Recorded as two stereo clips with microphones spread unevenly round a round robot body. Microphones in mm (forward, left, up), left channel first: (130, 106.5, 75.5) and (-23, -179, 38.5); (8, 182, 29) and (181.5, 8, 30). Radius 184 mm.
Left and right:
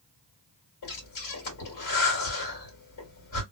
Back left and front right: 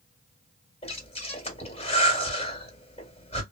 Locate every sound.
0.8 s breathing: 75° left, 2 m